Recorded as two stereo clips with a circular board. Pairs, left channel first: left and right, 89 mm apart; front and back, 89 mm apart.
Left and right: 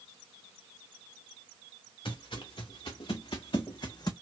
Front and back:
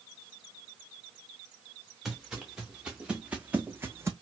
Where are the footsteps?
95° left, 1.5 m; by 4.1 s 125° left, 0.6 m.